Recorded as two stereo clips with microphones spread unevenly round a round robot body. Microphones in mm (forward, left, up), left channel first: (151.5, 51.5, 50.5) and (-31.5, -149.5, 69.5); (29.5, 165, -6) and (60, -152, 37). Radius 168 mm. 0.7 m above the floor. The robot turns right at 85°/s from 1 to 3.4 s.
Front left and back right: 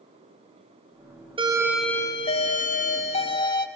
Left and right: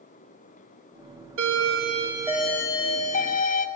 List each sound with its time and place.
1.4 s a doorbell: 70° right, 1.1 m; by 3.7 s 100° left, 1.1 m